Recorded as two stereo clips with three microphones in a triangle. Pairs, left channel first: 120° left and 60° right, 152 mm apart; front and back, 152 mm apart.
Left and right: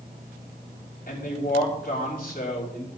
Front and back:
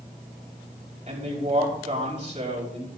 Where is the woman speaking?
135° left, 5 m.